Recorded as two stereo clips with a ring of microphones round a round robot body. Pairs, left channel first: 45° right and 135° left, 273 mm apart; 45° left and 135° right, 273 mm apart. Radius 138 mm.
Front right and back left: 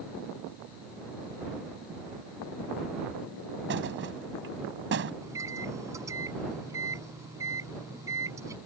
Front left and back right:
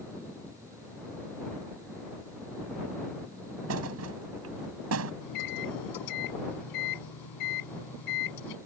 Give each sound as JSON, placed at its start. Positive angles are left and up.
{"t": 3.7, "sound": "a thud", "azimuth_deg": -175}
{"t": 5.2, "sound": "a microwave", "azimuth_deg": 55}